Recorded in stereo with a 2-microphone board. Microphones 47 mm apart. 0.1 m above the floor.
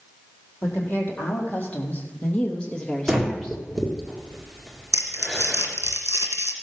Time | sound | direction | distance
0.6 | a woman speaking | 40° left (ahead or behind) | 4 m
3.1 | breathing | 5° right (ahead or behind) | 2 m
4.9 | crumpling | 75° left (ahead or behind) | 1.8 m